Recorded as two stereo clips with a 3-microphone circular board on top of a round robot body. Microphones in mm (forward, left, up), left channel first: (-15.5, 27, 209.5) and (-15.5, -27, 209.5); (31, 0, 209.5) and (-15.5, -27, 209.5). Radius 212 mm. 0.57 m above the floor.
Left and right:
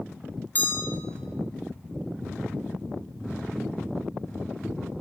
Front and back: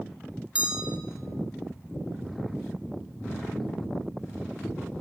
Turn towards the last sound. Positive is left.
turn(degrees=140)